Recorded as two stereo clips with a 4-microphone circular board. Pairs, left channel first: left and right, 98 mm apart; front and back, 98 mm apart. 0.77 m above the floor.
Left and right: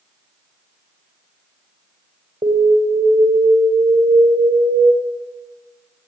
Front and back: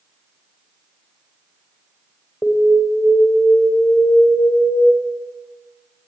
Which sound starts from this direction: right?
An alarm, at 2.4 s.